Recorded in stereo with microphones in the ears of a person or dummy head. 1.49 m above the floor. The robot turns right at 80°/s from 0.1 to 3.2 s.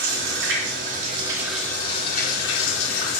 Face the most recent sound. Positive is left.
turn(degrees=135)